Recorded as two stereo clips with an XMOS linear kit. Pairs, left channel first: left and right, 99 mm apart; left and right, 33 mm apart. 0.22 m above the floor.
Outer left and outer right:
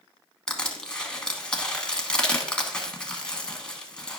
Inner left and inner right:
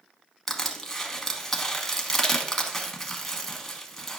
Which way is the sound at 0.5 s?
10° left (ahead or behind).